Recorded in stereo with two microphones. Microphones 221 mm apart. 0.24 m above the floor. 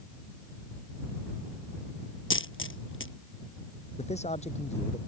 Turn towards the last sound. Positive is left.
turn(degrees=30)  # may be behind; listen again after turning